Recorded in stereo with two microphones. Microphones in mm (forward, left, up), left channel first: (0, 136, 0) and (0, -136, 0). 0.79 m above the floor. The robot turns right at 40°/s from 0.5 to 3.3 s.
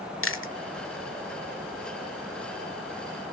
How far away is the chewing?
About 1.0 m.